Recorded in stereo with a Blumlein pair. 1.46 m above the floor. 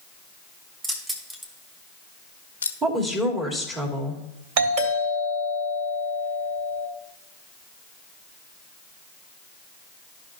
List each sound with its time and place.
0.8 s keys jangling: 20° right, 1.9 m; by 2.7 s 80° left, 0.8 m
2.8 s a woman speaking: 20° right, 2.5 m
4.6 s a doorbell: 50° right, 3 m